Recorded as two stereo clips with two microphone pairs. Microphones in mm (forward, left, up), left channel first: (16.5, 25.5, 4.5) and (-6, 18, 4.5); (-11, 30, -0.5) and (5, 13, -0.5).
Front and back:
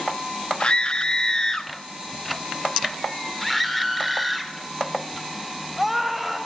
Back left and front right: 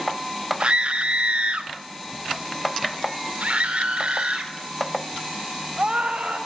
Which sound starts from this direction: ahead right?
A scream, at 0.6 s.